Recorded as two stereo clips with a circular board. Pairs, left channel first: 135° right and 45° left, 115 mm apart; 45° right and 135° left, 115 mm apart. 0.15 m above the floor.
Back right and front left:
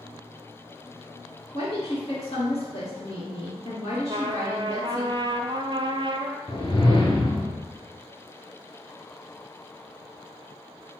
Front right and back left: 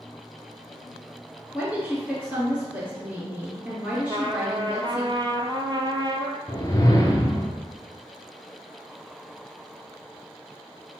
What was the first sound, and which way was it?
A woman speaking, 145° right.